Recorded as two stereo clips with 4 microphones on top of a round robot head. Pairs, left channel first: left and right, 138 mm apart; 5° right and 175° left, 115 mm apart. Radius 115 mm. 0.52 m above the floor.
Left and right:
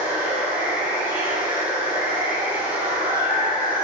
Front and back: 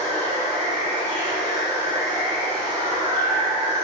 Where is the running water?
20° right, 1.9 m.